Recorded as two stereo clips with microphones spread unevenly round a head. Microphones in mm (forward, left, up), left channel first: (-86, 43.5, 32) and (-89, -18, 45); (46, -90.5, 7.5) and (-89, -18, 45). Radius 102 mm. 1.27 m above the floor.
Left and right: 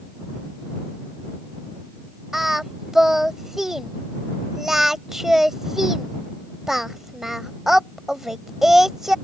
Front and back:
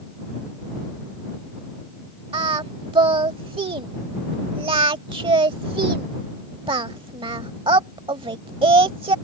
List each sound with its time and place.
2.3 s singing: 165° right